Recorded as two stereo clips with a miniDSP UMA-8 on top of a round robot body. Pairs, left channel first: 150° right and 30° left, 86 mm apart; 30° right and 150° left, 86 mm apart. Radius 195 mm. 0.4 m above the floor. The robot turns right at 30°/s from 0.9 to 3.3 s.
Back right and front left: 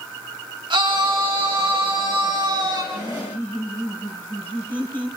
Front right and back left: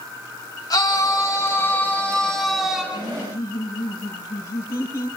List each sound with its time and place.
0.7 s a scream: 10° left, 5 m; by 2.8 s 70° left, 5 m
2.9 s laughter: 95° right, 6.5 m; by 5.1 s 85° right, 6.5 m